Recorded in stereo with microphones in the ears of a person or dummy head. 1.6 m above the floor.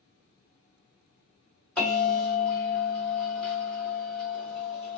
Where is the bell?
5° left (ahead or behind), 2.0 m.